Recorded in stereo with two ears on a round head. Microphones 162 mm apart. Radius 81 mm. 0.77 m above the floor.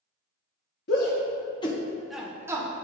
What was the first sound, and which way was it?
A shout, 60° left (ahead or behind).